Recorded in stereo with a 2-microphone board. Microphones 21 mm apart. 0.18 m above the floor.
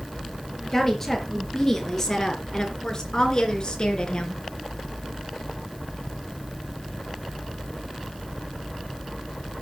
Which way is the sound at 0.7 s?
10° left (ahead or behind).